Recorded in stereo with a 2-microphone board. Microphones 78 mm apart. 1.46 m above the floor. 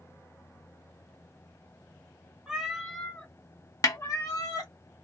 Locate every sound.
2.5 s a cat meowing: 10° right (ahead or behind), 0.8 m; by 4.7 s 50° left (ahead or behind), 1.5 m
3.8 s a snare drum: 45° left (ahead or behind), 0.6 m